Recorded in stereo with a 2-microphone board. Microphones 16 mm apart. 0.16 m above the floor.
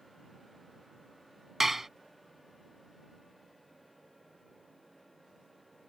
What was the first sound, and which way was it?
Dishes clattering, 15° right (ahead or behind).